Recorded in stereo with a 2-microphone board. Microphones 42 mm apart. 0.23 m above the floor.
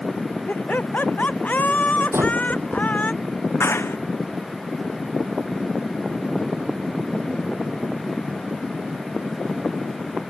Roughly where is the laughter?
Left.